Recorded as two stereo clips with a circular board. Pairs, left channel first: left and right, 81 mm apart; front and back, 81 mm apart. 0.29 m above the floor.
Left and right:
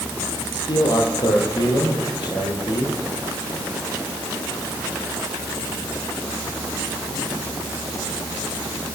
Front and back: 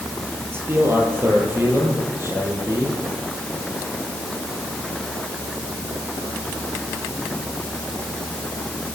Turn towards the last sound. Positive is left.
turn(degrees=120)